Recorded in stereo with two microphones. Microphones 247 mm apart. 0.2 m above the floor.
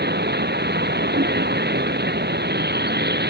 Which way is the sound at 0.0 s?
45° right (ahead or behind).